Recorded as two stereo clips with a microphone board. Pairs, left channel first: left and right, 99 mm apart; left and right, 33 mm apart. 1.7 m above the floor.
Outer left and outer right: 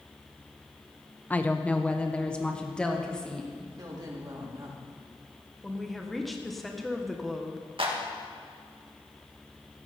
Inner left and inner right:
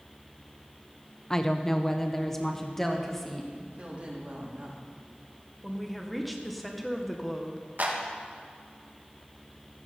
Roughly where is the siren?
No siren in this recording.